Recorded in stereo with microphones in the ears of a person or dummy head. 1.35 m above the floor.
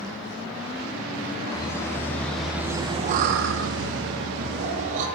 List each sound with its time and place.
1.5 s laughter: 15° left (ahead or behind), 2 m; by 5.1 s 55° right (ahead or behind), 2.5 m